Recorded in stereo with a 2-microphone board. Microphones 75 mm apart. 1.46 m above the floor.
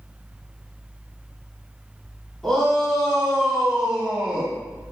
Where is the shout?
5° left (ahead or behind), 4.5 m; by 4.5 s 15° right (ahead or behind), 3.5 m.